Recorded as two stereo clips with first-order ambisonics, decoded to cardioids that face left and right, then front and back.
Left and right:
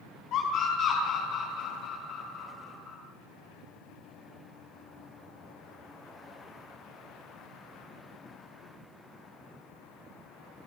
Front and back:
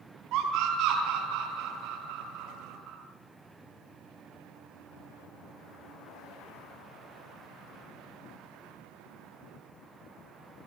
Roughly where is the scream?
Behind left.